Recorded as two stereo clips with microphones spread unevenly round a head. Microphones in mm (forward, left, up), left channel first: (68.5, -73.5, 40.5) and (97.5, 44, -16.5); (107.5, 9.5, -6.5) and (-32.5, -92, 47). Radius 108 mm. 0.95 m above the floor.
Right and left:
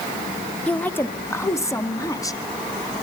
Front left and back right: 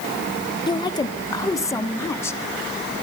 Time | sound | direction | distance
0.7 | a woman speaking | 10° right | 1.3 m